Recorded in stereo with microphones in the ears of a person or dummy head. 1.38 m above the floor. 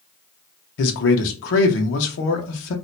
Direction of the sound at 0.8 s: 70° left (ahead or behind).